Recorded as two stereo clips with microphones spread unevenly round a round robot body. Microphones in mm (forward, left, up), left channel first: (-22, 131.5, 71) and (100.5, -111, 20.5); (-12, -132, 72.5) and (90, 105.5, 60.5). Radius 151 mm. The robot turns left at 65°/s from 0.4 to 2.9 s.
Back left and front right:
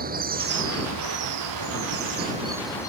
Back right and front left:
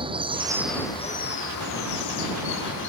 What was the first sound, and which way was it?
Running water, 5° right.